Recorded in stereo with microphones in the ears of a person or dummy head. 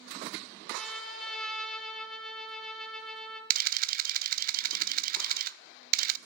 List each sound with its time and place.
0.7 s a trumpet: centre (ahead or behind), 3.5 m
3.5 s a camera shutter: 50° right (ahead or behind), 0.6 m